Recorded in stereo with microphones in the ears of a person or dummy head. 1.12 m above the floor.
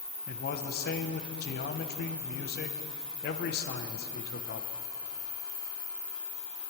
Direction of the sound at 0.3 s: 50° left (ahead or behind).